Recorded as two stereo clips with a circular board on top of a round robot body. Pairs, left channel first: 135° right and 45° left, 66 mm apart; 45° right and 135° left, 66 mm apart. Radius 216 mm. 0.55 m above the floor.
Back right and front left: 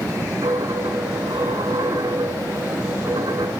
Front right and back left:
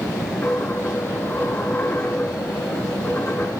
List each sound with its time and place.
0.4 s a dropped coin: 20° left, 3 m